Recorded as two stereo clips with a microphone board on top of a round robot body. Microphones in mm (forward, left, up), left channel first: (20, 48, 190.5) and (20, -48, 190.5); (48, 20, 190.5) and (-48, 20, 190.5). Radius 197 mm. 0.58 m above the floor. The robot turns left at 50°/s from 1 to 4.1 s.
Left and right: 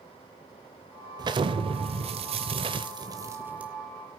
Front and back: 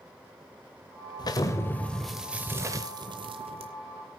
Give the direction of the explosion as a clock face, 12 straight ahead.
2 o'clock.